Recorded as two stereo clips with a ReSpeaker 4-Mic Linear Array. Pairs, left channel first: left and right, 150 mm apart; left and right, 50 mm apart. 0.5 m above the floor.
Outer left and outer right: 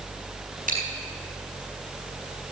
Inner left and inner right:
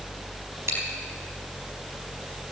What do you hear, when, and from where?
0.7 s chewing: 65° right (ahead or behind), 4.5 m